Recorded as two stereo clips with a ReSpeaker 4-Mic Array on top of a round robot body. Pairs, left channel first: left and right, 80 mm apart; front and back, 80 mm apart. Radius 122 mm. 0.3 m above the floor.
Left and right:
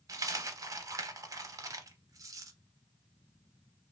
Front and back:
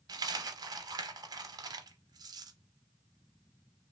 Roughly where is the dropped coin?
Behind right.